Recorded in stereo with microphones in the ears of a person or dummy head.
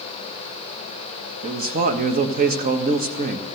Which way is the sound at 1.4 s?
45° right (ahead or behind).